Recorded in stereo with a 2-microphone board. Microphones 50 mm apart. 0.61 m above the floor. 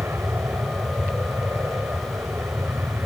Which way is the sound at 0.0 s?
55° right (ahead or behind).